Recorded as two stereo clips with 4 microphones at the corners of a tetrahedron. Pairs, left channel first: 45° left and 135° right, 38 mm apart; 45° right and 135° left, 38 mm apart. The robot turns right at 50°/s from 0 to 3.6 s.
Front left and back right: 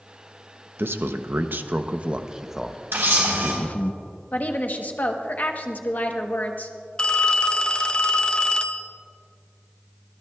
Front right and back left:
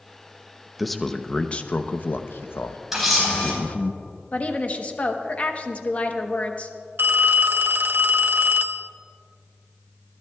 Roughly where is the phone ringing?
Left.